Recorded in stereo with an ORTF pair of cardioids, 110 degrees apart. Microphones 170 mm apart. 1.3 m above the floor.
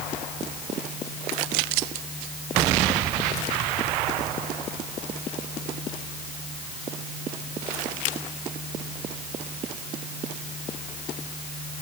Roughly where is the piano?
I don't hear a piano.